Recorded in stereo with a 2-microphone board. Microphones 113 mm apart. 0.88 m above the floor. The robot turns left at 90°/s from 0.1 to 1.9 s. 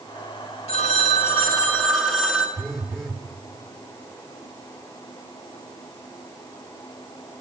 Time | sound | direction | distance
0.7 | a phone ringing | 115° left | 2 m
2.6 | a phone buzzing | 5° left (ahead or behind) | 1.1 m